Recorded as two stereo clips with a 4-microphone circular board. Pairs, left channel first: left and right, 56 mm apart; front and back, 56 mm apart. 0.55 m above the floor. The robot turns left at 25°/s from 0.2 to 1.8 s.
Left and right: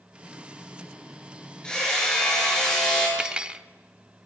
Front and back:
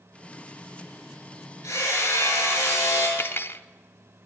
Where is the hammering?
15° left, 9 m; by 3.1 s 10° left, 9 m.